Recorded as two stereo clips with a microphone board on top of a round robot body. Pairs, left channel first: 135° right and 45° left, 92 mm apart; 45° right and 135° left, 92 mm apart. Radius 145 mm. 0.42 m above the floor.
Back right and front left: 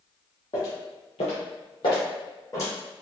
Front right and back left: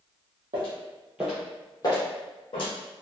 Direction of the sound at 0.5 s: 170° left.